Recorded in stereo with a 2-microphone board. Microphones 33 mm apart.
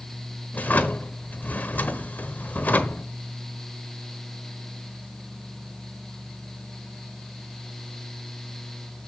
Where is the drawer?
60° left (ahead or behind), 1.0 m.